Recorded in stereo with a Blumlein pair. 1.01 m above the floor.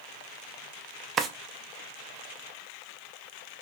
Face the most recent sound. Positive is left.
turn(degrees=-25)